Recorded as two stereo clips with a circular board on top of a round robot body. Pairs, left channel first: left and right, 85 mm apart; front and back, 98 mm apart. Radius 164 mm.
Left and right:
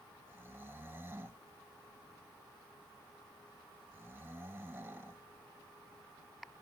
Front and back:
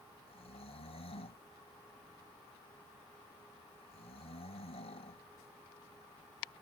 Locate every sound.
0.3 s snoring: 25° right